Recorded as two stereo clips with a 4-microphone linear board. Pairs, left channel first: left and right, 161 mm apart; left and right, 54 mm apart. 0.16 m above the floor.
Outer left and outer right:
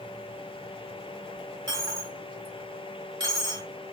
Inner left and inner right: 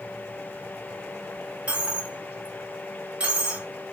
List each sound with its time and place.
1.7 s a dropped coin: 25° right (ahead or behind), 2.0 m